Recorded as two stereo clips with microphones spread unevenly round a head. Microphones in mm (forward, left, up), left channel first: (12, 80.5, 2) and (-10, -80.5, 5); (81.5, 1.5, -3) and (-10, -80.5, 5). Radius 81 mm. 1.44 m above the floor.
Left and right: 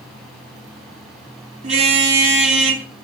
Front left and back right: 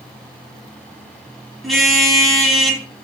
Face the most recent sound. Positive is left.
turn(degrees=-50)